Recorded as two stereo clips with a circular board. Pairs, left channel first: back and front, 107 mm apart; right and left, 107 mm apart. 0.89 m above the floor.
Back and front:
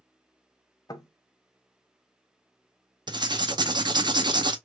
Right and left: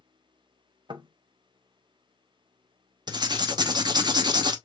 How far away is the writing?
About 0.6 m.